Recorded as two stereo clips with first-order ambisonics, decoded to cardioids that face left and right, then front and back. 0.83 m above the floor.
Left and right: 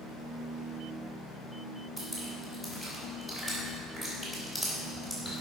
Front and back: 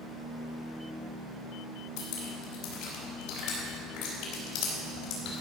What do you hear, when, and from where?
2.0 s dripping: 15° right, 4 m